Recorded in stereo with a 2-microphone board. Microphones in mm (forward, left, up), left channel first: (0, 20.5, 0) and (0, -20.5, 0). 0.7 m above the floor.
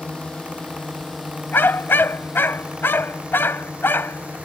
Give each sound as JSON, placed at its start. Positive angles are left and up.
{"t": 0.0, "sound": "a drone", "side_deg": 15}
{"t": 1.5, "sound": "a dog barking", "side_deg": 65}